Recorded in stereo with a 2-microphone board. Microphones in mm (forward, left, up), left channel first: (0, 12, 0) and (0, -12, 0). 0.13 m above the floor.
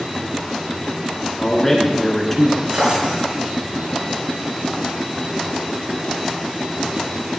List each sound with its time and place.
1.4 s a man speaking: 5° left (ahead or behind), 1.3 m
2.7 s a drawer: 45° right (ahead or behind), 3.5 m